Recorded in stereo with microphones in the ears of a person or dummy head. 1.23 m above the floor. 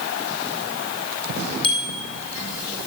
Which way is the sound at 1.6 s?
25° left (ahead or behind).